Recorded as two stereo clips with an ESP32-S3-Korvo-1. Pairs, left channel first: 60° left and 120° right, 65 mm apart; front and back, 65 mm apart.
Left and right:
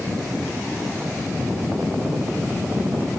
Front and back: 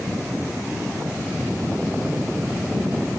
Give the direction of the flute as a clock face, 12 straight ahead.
I don't hear a flute.